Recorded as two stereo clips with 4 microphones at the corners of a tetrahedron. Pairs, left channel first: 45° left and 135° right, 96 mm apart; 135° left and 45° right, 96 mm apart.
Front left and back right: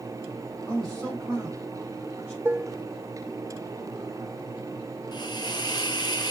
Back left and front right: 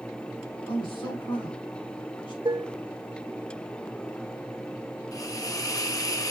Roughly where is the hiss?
Left.